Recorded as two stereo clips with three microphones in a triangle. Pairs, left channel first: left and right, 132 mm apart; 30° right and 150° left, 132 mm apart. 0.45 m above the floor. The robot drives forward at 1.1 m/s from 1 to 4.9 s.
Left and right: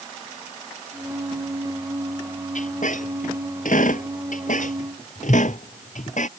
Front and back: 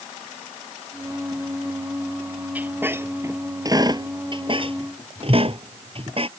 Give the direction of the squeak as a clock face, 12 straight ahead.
10 o'clock.